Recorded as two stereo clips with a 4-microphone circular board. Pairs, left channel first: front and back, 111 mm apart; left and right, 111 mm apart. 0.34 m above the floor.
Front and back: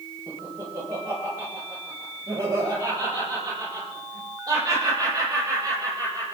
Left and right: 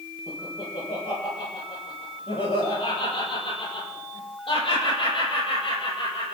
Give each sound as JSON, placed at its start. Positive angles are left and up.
{"t": 0.3, "sound": "laughter", "azimuth_deg": 115, "distance_m": 9.0}